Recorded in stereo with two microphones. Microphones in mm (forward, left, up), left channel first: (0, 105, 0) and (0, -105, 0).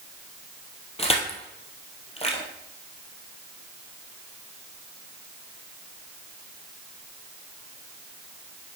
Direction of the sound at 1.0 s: 30° left (ahead or behind).